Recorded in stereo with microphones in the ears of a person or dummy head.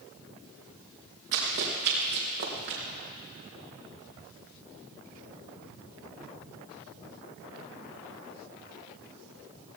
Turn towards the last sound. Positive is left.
turn(degrees=-55)  # may be behind; listen again after turning